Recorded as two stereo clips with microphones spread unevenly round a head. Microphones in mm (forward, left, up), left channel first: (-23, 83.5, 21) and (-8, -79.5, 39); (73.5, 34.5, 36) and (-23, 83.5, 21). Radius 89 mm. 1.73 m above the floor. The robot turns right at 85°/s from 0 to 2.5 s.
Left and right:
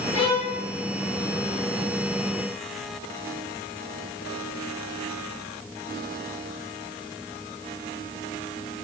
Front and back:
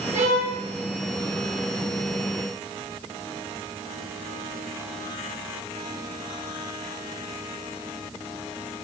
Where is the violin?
145° left, 1.7 m; by 0.6 s straight behind, 1.7 m.